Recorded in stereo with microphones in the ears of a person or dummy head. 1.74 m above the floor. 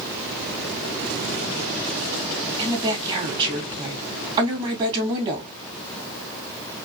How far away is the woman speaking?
About 2.5 m.